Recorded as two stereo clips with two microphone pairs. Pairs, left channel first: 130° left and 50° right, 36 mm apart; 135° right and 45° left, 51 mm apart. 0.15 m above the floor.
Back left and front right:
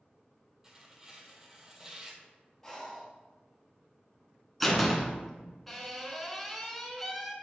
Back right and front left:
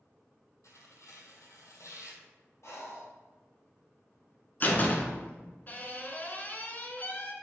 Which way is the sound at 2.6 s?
145° right.